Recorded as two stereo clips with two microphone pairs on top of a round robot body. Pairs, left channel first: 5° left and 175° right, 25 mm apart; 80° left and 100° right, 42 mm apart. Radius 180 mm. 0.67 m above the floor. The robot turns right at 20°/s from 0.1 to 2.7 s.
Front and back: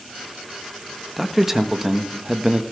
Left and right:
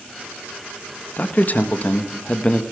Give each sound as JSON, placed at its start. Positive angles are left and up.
{"t": 1.2, "sound": "a man speaking", "azimuth_deg": 95, "distance_m": 1.4}